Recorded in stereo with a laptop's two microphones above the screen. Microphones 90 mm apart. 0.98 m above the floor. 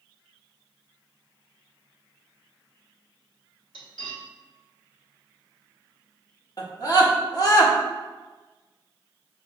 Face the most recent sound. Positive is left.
turn(degrees=45)  # may be behind; listen again after turning